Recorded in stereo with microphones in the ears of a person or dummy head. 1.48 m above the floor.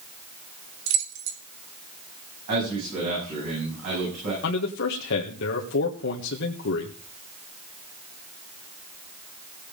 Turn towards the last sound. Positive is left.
turn(degrees=65)  # may be behind; listen again after turning